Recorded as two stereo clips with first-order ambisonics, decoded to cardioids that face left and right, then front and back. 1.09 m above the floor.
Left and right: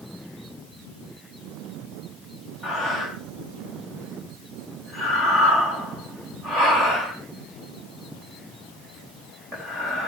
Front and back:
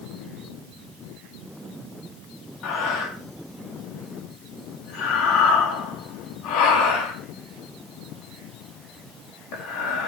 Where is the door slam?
I don't hear a door slam.